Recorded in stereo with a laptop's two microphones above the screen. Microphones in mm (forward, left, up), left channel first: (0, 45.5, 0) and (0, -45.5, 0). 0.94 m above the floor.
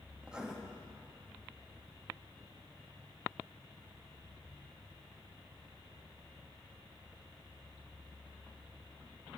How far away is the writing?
About 1.1 m.